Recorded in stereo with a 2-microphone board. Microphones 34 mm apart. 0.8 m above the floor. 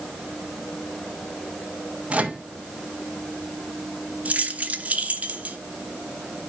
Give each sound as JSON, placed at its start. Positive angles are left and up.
{"t": 2.1, "sound": "a microwave", "side_deg": -40, "distance_m": 1.0}
{"t": 4.2, "sound": "keys jangling", "side_deg": -45, "distance_m": 0.9}